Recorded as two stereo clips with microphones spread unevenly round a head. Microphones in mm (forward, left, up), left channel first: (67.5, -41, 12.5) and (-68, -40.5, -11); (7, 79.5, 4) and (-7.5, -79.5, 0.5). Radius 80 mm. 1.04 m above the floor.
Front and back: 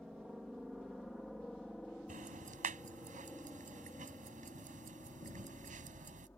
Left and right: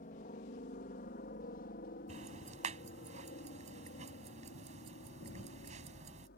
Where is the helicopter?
95° left; by 6.4 s 80° left.